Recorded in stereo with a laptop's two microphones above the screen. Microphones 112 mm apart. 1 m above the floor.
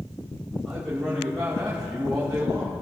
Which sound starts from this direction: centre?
A man speaking, at 0.7 s.